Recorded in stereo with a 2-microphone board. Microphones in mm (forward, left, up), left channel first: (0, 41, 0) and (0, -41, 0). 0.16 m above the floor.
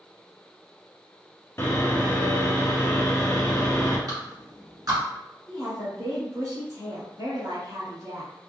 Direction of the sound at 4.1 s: 50° right (ahead or behind).